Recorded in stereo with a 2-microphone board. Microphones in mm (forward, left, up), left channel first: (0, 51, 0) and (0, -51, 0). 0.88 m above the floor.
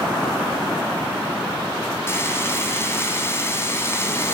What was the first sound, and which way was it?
Frying, 25° left (ahead or behind).